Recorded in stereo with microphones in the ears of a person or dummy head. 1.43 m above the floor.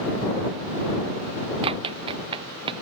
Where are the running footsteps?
30° right (ahead or behind).